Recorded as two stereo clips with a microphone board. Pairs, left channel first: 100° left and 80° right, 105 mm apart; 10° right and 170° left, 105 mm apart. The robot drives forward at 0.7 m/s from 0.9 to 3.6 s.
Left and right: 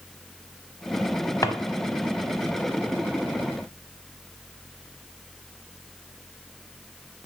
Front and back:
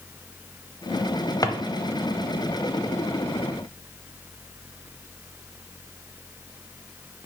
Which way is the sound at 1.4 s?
40° left.